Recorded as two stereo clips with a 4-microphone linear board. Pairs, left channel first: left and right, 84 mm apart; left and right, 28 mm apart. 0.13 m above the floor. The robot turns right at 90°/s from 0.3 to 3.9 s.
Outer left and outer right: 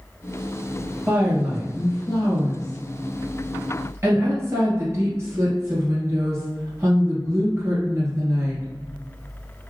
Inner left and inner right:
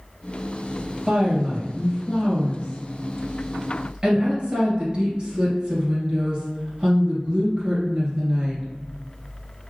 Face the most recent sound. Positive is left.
turn(degrees=-135)